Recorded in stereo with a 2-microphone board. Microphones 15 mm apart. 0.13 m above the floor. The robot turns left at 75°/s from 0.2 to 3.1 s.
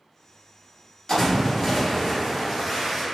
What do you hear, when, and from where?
1.1 s a splash: 55° left, 2.0 m; by 3.0 s 90° right, 2.0 m